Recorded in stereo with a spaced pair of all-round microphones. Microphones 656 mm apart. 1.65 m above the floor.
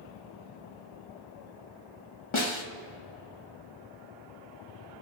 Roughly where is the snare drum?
Left.